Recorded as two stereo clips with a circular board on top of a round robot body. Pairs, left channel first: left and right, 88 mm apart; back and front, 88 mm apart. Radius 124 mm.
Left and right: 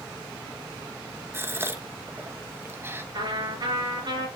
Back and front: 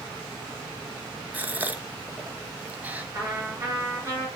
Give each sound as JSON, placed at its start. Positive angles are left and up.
{"t": 1.3, "sound": "a gasp", "azimuth_deg": -55, "distance_m": 1.0}
{"t": 3.1, "sound": "a trumpet", "azimuth_deg": -55, "distance_m": 5.0}